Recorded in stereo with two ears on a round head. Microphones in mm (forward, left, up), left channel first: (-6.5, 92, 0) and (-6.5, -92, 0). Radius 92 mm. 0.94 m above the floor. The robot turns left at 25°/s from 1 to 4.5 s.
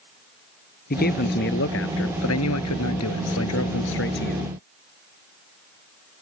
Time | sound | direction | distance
0.9 | a man speaking | 135° left | ?